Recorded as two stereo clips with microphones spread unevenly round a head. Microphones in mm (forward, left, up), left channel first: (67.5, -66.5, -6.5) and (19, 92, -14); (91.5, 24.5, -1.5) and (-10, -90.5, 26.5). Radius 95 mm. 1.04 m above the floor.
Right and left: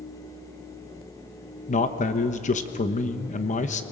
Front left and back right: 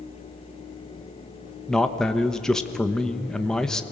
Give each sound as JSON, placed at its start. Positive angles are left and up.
{"t": 1.7, "sound": "a man speaking", "azimuth_deg": -30, "distance_m": 1.2}